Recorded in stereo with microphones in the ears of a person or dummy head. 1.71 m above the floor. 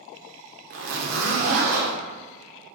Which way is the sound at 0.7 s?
45° right (ahead or behind).